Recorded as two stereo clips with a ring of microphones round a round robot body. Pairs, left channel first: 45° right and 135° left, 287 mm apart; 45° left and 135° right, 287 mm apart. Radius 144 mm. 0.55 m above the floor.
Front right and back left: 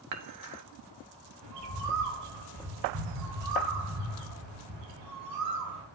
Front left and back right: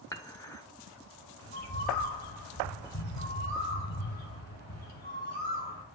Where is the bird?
105° left, 2 m.